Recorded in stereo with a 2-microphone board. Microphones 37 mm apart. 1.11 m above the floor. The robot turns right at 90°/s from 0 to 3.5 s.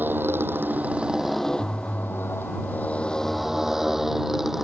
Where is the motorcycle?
60° right (ahead or behind); by 4.6 s 5° right (ahead or behind).